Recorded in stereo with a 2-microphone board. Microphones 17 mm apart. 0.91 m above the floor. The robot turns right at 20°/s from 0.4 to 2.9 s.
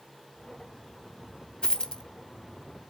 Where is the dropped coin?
55° left (ahead or behind), 0.7 m.